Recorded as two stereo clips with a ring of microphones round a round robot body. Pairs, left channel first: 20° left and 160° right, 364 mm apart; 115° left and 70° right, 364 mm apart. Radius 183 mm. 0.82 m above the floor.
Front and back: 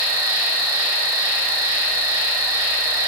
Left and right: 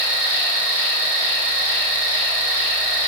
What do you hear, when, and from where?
0.0 s an insect: 105° right, 2 m